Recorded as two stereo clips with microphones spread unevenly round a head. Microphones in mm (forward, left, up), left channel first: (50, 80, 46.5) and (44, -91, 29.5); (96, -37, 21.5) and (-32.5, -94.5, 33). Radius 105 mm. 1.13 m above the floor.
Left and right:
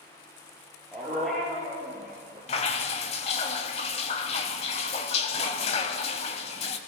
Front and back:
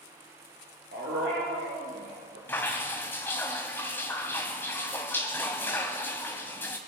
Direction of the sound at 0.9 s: 175° left.